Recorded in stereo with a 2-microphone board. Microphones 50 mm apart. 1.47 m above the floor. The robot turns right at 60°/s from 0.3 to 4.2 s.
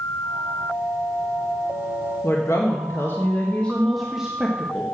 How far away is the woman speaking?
About 1.4 m.